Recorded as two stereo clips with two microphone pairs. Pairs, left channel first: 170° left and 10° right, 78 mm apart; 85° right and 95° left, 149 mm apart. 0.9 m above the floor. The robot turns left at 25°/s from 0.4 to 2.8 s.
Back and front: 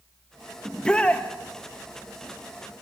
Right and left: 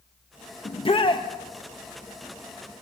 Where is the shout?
110° right, 1.0 m; by 1.3 s 125° right, 1.0 m.